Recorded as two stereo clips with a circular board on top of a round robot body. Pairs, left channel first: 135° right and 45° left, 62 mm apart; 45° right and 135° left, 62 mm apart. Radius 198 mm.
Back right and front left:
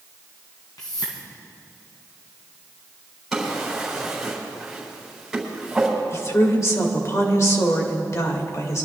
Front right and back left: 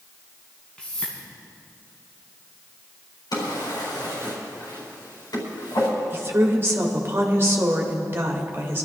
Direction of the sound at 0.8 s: 120° right.